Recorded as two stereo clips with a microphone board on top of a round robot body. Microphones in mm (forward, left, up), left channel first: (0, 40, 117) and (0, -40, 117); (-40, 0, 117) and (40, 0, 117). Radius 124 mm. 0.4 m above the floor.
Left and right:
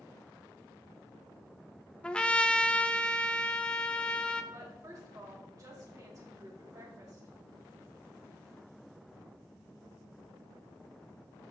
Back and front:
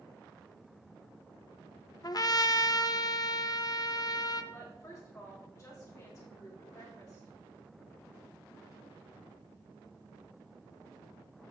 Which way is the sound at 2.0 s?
165° left.